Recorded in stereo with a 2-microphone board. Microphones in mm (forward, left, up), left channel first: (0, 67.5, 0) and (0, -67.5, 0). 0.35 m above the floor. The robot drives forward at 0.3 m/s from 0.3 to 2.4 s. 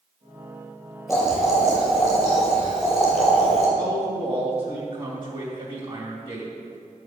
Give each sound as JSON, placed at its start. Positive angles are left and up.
{"t": 1.1, "sound": "boiling", "side_deg": 0, "distance_m": 3.5}
{"t": 3.8, "sound": "a man speaking", "side_deg": -45, "distance_m": 2.0}